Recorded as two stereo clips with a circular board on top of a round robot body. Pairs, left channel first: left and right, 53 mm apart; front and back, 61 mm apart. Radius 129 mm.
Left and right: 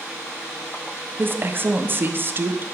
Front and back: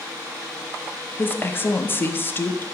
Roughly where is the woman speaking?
Ahead right.